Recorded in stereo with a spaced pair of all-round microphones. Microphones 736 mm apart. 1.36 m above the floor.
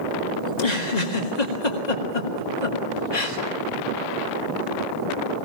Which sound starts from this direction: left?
A giggle, at 0.5 s.